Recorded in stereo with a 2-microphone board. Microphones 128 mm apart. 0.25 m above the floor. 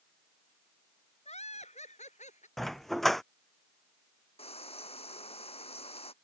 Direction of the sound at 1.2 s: 60° left (ahead or behind).